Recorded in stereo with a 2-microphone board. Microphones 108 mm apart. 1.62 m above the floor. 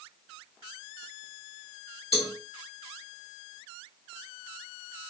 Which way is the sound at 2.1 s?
70° left (ahead or behind).